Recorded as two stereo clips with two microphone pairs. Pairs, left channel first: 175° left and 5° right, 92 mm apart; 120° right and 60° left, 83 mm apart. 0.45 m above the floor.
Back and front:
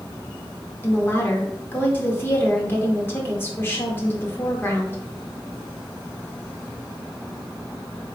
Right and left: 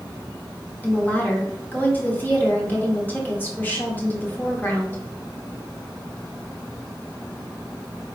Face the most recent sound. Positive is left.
turn(degrees=-155)